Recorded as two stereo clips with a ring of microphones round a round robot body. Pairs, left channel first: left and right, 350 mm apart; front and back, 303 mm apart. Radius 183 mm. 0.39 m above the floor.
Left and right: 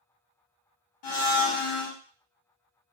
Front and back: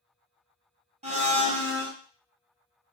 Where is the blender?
110° left, 1.2 m.